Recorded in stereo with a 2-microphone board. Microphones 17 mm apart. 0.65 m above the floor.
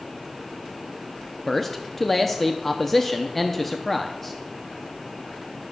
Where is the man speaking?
15° left (ahead or behind), 0.6 m.